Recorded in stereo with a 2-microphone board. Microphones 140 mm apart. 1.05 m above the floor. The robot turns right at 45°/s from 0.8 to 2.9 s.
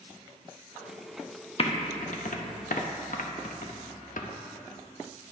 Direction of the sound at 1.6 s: 45° left (ahead or behind).